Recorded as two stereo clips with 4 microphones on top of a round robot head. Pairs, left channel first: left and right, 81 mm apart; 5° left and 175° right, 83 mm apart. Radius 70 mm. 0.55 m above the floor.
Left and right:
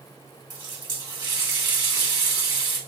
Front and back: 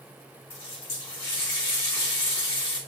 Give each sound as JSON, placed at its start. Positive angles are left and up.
{"t": 0.5, "sound": "a running tap", "azimuth_deg": -55, "distance_m": 3.0}